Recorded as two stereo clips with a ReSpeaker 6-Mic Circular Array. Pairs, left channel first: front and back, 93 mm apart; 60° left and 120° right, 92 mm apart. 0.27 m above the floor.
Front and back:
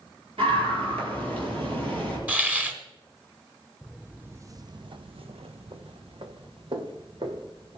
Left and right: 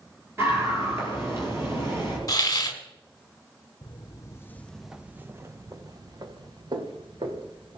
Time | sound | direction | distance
0.4 | a scream | 175° left | 6.5 m
2.3 | a hiss | 105° left | 1.4 m
3.8 | footsteps | 95° left | 1.1 m